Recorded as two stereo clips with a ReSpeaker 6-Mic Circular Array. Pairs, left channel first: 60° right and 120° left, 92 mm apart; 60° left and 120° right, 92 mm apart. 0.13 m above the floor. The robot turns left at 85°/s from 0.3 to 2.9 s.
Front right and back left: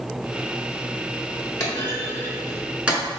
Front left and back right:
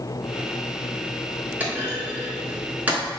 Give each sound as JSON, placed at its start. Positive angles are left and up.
{"t": 1.6, "sound": "a clunk", "azimuth_deg": -65, "distance_m": 1.2}